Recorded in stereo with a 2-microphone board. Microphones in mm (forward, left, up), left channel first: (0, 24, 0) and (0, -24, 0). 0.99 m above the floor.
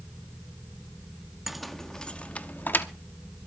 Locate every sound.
1.5 s keys jangling: 5° right (ahead or behind), 0.8 m; by 2.9 s 45° left (ahead or behind), 1.0 m